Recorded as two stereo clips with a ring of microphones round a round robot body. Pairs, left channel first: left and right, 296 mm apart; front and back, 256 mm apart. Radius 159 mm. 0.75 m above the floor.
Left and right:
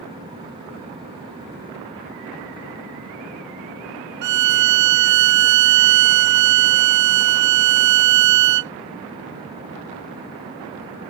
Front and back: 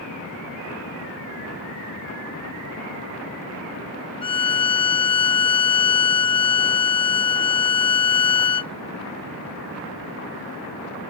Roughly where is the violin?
Right.